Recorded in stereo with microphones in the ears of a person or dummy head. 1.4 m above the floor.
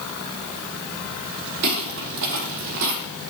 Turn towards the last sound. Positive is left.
turn(degrees=-65)  # may be behind; listen again after turning